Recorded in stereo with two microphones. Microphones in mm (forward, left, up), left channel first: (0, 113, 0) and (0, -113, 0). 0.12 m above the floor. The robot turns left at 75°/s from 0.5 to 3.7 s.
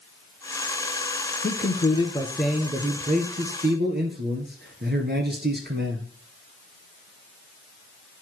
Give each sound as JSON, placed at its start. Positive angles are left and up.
{"t": 1.4, "sound": "a man speaking", "azimuth_deg": 75, "distance_m": 1.6}